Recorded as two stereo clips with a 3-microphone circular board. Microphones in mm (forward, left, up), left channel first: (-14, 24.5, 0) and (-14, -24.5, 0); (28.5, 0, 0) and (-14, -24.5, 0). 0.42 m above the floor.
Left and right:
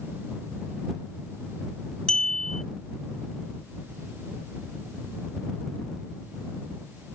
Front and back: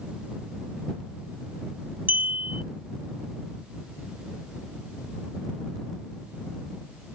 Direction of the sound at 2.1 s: 165° left.